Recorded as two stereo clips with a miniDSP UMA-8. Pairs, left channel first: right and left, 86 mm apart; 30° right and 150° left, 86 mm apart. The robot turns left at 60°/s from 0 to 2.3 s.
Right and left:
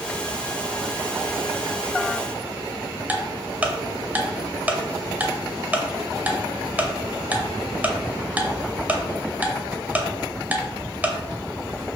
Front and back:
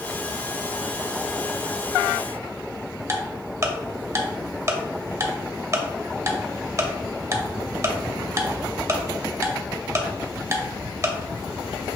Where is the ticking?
145° left, 0.6 m.